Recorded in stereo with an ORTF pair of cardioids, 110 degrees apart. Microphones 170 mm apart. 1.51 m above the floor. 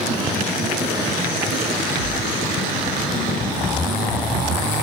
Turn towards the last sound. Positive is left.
turn(degrees=-55)